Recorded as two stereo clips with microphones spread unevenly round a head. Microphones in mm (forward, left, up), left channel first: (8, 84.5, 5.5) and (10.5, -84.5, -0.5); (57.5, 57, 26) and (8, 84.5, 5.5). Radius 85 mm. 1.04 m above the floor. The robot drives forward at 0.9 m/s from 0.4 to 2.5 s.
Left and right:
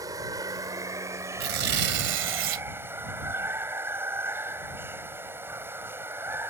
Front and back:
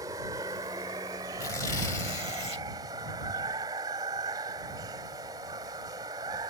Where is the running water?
160° right; by 6.5 s 165° right.